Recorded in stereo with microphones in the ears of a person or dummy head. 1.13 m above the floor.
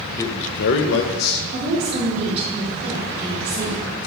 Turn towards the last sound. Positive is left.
turn(degrees=-40)  # may be behind; listen again after turning